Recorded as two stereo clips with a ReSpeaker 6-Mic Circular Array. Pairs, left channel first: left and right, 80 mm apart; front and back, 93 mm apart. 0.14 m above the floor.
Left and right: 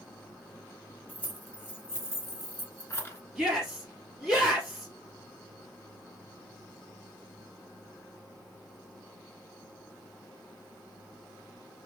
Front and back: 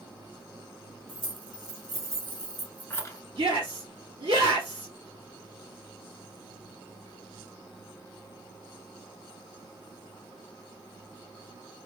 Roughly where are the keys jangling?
Behind.